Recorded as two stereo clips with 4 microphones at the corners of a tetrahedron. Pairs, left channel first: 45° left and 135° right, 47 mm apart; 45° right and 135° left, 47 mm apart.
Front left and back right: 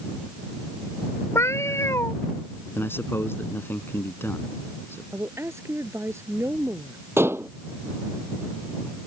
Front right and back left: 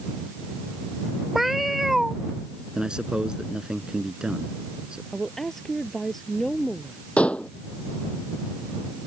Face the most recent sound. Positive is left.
turn(degrees=-110)